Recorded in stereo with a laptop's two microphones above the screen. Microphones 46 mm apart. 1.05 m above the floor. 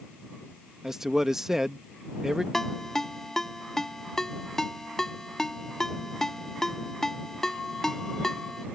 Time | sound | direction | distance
0.8 | a man speaking | 10° right (ahead or behind) | ?
2.5 | a ringtone | 10° left (ahead or behind) | ?